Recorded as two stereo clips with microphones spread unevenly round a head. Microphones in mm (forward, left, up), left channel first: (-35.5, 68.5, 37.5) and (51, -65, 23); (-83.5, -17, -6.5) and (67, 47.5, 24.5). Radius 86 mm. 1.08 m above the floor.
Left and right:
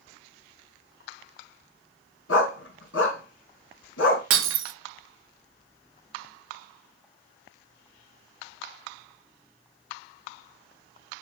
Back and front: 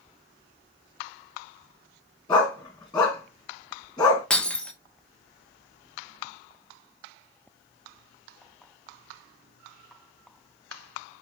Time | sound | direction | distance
2.3 | a dog barking | 135° left | 3 m
4.3 | breaking glass | 65° right | 0.8 m